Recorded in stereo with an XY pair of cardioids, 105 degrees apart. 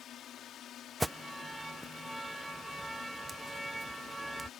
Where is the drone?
65° left.